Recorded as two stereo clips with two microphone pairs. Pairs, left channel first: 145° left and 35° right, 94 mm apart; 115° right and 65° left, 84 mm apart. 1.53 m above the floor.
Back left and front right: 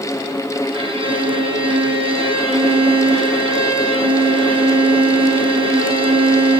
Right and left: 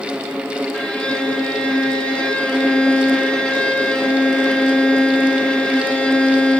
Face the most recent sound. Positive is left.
turn(degrees=-40)